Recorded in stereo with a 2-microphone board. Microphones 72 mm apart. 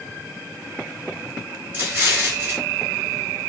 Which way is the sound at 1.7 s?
30° right (ahead or behind).